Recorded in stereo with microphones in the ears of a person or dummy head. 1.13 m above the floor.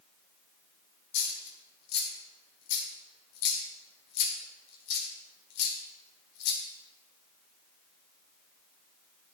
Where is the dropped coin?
60° left (ahead or behind), 1.3 m.